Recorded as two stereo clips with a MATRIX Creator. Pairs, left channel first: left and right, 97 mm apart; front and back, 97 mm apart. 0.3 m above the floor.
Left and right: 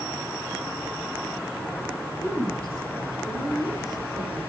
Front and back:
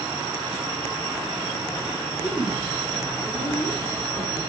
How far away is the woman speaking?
About 6 m.